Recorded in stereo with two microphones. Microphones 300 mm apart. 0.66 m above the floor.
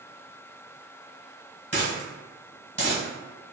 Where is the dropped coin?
40° right (ahead or behind), 1.4 m.